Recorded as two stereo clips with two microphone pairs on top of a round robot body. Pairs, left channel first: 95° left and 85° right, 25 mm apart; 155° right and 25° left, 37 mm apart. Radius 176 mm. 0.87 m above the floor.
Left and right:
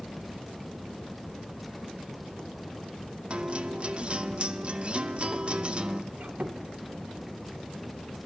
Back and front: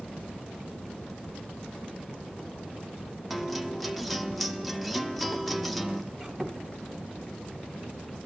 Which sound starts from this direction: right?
A guitar, at 3.3 s.